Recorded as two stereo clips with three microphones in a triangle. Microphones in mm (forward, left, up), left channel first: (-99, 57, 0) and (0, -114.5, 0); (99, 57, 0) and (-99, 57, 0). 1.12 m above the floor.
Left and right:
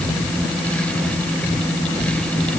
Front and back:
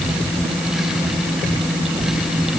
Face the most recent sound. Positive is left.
No sound to turn to.